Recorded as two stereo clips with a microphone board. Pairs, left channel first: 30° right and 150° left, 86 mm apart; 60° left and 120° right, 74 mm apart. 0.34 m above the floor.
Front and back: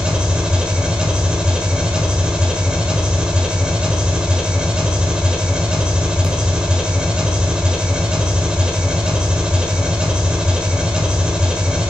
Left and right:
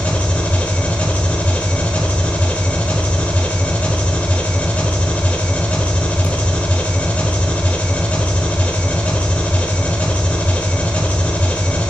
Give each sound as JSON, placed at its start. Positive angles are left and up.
{"t": 0.0, "sound": "an engine running", "azimuth_deg": 90, "distance_m": 1.2}